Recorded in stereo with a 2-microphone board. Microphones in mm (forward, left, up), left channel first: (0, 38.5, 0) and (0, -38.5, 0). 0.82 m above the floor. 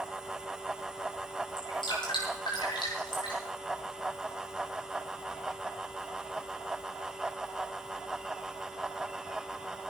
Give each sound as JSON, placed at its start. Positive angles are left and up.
{"t": 1.6, "sound": "dripping", "side_deg": 85, "distance_m": 7.5}